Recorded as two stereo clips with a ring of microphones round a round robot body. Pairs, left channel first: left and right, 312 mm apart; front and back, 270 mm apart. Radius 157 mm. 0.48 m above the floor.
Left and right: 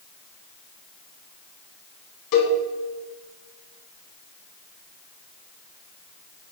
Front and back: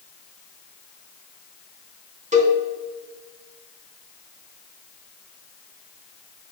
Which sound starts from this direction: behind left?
A cowbell, at 2.3 s.